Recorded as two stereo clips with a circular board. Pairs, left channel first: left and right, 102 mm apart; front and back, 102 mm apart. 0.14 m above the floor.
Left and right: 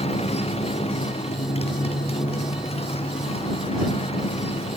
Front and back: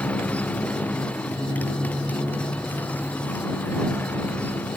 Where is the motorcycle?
75° left; by 4.8 s 70° left.